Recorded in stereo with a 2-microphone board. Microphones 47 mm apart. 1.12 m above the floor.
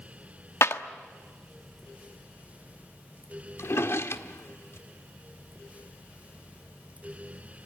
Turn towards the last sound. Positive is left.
turn(degrees=60)  # may be behind; listen again after turning